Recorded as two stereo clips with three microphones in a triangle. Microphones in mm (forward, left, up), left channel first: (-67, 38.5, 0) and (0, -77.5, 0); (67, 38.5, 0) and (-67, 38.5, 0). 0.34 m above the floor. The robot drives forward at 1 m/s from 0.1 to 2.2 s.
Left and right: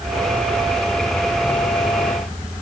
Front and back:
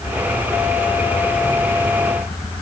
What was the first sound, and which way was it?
Only background noise.